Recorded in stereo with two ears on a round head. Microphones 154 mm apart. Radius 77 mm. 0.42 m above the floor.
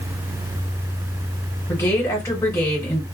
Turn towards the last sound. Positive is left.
turn(degrees=20)  # may be behind; listen again after turning